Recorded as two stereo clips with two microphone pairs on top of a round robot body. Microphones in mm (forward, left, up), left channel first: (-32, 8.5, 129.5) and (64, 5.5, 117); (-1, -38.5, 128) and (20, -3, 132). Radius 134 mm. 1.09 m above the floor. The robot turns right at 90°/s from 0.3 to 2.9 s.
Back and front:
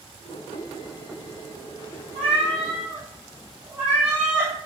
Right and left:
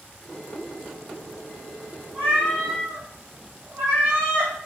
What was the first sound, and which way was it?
A cat meowing, 20° left.